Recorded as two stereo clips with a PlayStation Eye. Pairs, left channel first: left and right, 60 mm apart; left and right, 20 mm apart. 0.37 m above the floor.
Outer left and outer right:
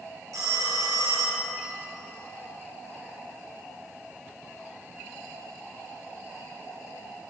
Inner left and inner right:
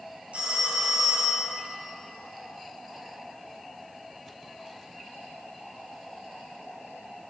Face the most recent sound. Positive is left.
turn(degrees=-85)